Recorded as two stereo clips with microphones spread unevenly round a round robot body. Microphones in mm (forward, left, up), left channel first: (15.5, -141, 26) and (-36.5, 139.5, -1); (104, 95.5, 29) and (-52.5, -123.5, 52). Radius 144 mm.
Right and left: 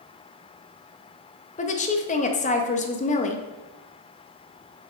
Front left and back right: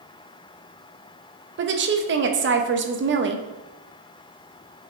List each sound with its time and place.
1.6 s a woman speaking: 135° right, 0.9 m